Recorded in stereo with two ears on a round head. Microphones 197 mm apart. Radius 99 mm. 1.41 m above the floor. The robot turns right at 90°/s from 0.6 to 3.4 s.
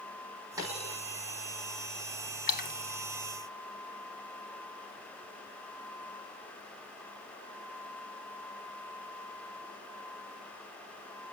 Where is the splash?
45° left (ahead or behind), 1.7 m.